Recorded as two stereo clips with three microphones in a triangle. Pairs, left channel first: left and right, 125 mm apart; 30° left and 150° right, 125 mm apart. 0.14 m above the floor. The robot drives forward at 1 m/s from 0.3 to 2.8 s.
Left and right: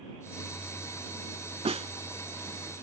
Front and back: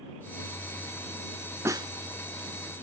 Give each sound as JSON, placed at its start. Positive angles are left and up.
{"t": 1.6, "sound": "a snare drum", "azimuth_deg": -85, "distance_m": 0.5}